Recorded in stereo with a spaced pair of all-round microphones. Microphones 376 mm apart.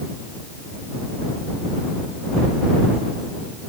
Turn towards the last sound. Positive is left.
No sound to turn to.